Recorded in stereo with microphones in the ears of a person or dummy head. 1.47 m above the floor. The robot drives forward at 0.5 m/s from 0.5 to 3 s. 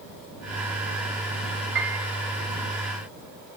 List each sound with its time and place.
1.8 s a piano: 60° right (ahead or behind), 1.7 m; by 2.1 s 55° right (ahead or behind), 1.8 m